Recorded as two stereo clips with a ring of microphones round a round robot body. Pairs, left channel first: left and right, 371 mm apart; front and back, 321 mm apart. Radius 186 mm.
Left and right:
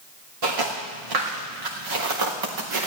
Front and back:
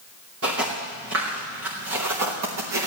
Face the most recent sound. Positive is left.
turn(degrees=-130)